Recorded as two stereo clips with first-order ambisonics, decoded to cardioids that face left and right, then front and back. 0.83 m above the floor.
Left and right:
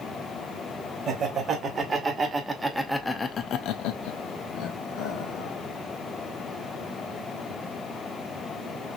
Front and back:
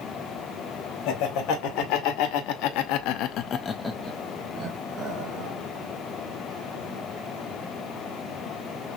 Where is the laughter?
25° right, 2 m; by 5.5 s 125° left, 1.6 m.